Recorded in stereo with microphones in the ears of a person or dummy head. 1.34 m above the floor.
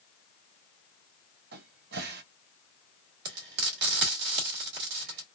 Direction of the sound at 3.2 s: 60° right (ahead or behind).